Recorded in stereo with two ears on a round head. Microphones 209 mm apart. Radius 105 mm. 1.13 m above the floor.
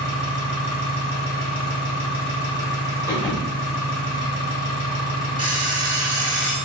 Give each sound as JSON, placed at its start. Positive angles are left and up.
{"t": 0.0, "sound": "an engine running", "side_deg": 75, "distance_m": 1.1}
{"t": 3.1, "sound": "a thud", "side_deg": 20, "distance_m": 0.9}
{"t": 5.4, "sound": "an alarm clock", "side_deg": -20, "distance_m": 0.7}